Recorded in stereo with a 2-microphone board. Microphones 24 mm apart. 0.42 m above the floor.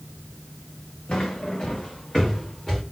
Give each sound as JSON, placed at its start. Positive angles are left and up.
{"t": 1.1, "sound": "footsteps", "side_deg": 45, "distance_m": 1.7}